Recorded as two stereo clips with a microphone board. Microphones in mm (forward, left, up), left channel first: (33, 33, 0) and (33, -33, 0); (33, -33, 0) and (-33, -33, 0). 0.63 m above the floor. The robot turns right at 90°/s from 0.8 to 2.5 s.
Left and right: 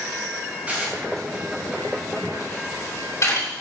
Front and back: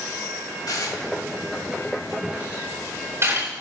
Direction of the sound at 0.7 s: 20° right.